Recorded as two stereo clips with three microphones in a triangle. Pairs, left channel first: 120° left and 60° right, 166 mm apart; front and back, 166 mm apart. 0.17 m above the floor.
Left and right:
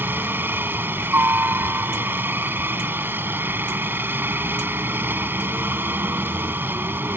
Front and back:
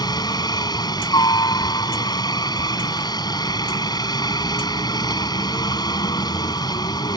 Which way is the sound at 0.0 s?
Straight ahead.